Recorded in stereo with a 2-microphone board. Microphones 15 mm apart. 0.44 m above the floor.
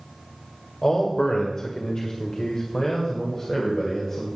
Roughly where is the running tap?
No running tap in this recording.